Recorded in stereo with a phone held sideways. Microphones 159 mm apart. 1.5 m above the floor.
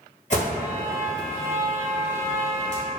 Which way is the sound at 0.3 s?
50° left (ahead or behind).